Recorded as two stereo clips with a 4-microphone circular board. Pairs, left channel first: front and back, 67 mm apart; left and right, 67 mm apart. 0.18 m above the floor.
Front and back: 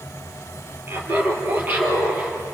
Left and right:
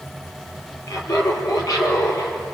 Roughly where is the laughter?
Behind left.